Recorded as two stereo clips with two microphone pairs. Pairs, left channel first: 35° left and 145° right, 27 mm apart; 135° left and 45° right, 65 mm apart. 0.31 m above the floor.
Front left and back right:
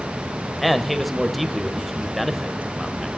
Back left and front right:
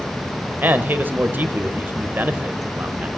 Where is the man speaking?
70° right, 1.1 m.